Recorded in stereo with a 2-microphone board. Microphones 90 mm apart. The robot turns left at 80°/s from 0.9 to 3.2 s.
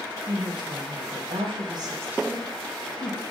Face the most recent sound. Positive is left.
turn(degrees=115)